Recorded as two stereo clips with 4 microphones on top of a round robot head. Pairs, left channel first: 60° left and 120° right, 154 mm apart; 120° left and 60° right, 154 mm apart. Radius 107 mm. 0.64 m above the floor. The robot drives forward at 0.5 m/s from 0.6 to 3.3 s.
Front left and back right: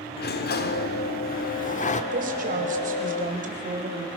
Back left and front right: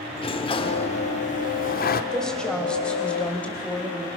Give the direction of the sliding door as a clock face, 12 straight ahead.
10 o'clock.